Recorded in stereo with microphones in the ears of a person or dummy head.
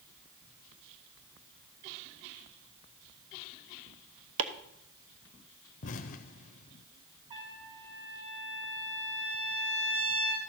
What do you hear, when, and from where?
4.4 s chopping: 75° right (ahead or behind), 1.1 m
5.8 s an explosion: 45° left (ahead or behind), 0.6 m
7.3 s a trumpet: 25° right (ahead or behind), 2.5 m